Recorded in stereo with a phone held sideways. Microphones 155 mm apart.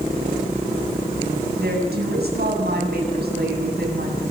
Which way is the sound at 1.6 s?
80° right.